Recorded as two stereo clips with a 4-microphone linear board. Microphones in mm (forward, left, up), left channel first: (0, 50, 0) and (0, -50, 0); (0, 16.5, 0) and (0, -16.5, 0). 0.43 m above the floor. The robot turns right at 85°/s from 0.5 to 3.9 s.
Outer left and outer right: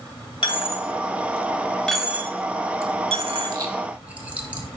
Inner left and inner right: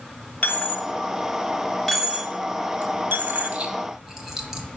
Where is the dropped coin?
55° left (ahead or behind), 0.7 m; by 4.6 s 15° right (ahead or behind), 0.7 m.